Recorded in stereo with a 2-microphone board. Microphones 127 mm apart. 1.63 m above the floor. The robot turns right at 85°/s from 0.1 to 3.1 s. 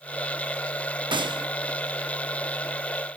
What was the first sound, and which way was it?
A gunshot, 105° right.